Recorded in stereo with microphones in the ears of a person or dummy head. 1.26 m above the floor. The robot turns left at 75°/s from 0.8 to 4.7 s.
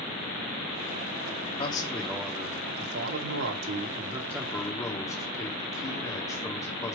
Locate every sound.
1.6 s a man speaking: 35° left, 2.5 m; by 7.0 s 160° left, 2.5 m